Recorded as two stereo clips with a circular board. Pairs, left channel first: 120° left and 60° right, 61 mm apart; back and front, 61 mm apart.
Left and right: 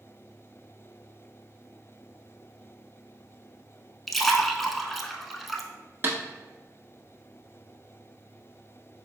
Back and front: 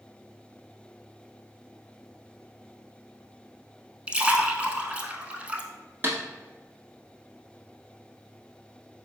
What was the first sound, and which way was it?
A splash, 35° left.